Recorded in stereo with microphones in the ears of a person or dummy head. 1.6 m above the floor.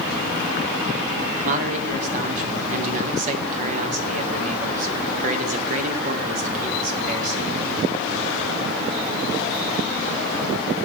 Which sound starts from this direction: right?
A man speaking, at 1.4 s.